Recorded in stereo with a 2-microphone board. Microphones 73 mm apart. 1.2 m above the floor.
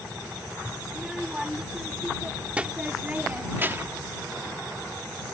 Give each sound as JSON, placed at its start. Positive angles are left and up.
{"t": 0.9, "sound": "a child speaking", "side_deg": -5}